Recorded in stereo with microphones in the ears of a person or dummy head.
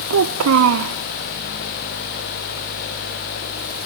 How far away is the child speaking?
About 0.6 m.